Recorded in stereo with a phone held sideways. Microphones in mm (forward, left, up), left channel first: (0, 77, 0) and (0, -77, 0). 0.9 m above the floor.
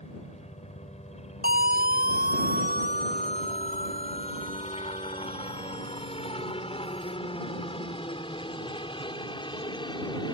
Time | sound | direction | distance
0.0 | a helicopter | 45° left (ahead or behind) | ?
1.4 | a siren | 80° right | ?